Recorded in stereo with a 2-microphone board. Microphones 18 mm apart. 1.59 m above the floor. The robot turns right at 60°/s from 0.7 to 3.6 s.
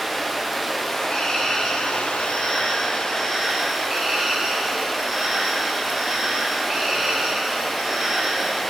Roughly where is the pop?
I don't hear a pop.